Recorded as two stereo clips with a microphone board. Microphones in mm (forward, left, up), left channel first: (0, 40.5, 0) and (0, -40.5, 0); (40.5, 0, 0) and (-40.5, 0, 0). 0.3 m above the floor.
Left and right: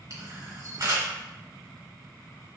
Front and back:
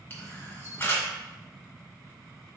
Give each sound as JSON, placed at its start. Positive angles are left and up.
{"t": 0.1, "sound": "a camera shutter", "azimuth_deg": -55, "distance_m": 1.7}